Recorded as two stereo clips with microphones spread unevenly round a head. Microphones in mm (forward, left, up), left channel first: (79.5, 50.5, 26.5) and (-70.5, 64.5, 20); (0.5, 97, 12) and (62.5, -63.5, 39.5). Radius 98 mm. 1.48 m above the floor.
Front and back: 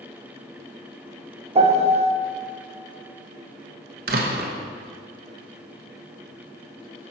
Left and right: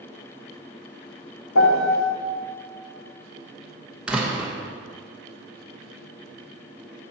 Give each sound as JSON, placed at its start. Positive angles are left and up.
{"t": 1.6, "sound": "a piano", "azimuth_deg": 125, "distance_m": 1.2}
{"t": 4.1, "sound": "a door slam", "azimuth_deg": -150, "distance_m": 0.9}